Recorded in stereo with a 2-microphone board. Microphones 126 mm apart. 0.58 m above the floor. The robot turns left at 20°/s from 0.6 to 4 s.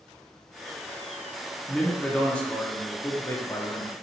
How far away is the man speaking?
About 0.7 m.